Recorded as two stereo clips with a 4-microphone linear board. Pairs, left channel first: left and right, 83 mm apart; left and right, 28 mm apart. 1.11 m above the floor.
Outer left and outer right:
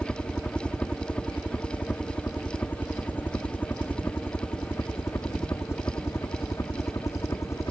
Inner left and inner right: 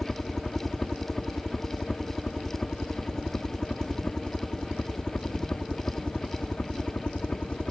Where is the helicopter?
10° left (ahead or behind); by 7.7 s 40° left (ahead or behind).